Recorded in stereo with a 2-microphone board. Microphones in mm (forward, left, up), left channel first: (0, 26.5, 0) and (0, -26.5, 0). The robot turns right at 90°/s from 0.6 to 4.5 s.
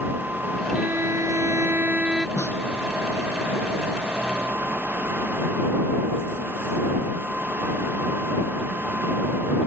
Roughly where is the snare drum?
Left.